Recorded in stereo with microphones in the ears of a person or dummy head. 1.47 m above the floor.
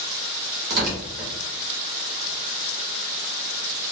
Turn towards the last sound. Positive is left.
turn(degrees=-55)  # may be behind; listen again after turning